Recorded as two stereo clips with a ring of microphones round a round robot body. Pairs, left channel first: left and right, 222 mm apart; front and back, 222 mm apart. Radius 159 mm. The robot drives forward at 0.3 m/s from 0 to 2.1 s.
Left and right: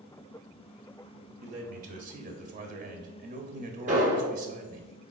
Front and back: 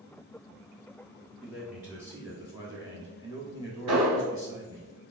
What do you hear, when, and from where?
1.4 s a man speaking: 90° right, 1.0 m; by 4.9 s 110° right, 1.1 m
3.9 s an explosion: 145° right, 1.7 m